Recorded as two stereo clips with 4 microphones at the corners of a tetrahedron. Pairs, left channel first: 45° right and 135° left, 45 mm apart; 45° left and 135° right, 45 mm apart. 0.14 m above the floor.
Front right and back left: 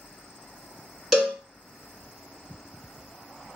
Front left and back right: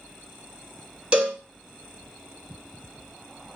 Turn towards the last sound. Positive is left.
turn(degrees=-145)